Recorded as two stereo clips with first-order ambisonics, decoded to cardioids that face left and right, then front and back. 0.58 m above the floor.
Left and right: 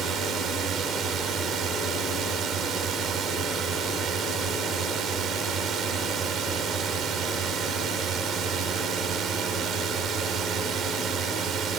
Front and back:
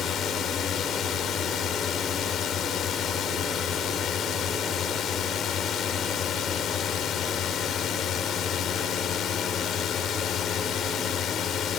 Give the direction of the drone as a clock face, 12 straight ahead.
2 o'clock.